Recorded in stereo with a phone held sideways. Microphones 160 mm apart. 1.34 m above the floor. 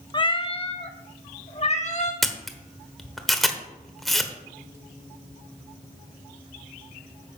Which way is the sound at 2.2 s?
Centre (ahead or behind).